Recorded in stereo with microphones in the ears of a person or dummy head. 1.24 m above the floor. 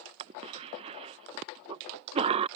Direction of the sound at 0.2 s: 35° right (ahead or behind).